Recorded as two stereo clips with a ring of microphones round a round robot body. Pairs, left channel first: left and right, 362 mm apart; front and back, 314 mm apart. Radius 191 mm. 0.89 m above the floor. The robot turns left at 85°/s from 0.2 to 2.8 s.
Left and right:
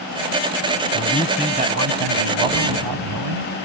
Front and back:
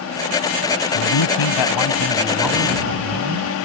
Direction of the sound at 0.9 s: 35° left.